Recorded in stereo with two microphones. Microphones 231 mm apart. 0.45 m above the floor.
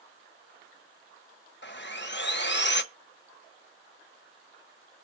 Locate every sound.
1.6 s sawing: 50° left (ahead or behind), 0.7 m